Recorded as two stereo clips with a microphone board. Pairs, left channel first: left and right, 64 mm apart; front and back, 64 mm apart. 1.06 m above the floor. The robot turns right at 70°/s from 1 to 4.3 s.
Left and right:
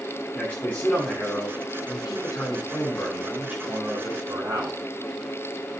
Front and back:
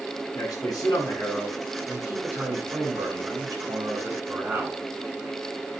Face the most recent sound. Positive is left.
turn(degrees=-105)